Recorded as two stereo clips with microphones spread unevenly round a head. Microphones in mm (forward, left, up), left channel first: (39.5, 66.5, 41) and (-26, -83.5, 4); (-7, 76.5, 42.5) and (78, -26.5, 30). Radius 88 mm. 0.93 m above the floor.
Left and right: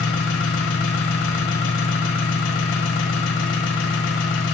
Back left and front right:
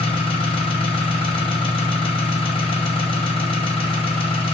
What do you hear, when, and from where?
0.0 s an engine running: 80° left, 2.5 m